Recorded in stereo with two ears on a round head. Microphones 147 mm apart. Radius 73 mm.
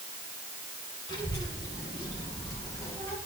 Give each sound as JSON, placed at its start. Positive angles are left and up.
{"t": 1.1, "sound": "a child speaking", "side_deg": 25, "distance_m": 4.5}